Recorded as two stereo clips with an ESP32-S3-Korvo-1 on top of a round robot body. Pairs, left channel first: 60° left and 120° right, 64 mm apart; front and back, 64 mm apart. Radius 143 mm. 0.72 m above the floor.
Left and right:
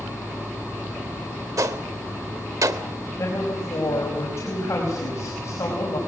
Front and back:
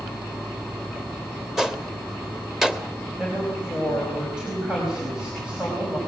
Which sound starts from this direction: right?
A gunshot, at 1.6 s.